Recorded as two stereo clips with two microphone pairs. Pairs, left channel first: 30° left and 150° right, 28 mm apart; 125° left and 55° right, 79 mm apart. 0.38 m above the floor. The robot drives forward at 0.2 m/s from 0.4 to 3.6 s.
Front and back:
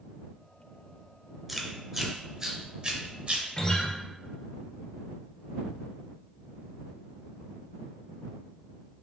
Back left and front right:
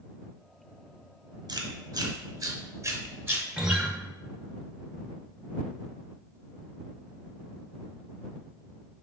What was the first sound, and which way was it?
Chewing, 65° right.